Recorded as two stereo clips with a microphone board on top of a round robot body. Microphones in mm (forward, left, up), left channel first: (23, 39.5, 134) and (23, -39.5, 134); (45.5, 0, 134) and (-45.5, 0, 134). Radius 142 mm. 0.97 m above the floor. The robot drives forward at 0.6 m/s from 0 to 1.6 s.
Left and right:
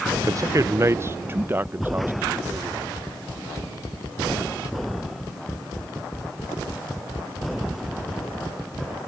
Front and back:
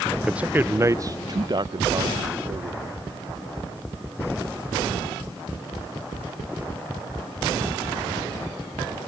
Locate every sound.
0.1 s a man speaking: 95° right; by 2.8 s 150° right